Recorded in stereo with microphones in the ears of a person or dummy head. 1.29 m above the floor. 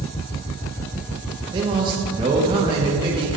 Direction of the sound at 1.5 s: 25° right (ahead or behind).